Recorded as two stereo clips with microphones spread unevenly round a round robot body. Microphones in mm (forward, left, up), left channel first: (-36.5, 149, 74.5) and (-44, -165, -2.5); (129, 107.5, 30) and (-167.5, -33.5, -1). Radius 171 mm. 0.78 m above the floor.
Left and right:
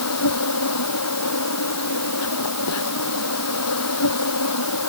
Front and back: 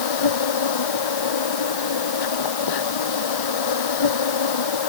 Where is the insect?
40° left.